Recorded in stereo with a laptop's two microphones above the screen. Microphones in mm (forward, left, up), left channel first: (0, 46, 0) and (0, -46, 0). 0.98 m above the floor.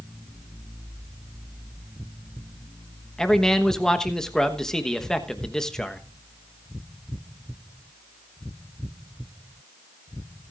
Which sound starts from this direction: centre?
A man speaking, at 3.2 s.